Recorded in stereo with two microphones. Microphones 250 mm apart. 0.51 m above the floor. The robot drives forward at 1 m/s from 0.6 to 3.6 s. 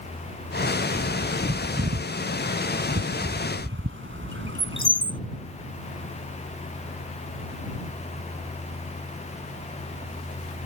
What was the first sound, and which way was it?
A bird, 75° right (ahead or behind).